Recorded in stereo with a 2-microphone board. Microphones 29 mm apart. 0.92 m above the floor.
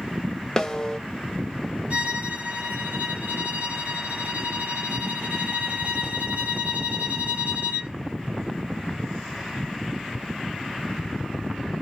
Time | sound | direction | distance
0.6 | a snare drum | 25° left (ahead or behind) | 0.7 m
1.9 | a violin | 60° right (ahead or behind) | 1.7 m